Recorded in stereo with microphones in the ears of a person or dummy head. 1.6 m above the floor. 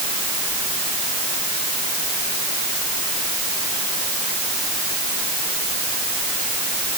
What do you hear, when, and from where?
Only background noise.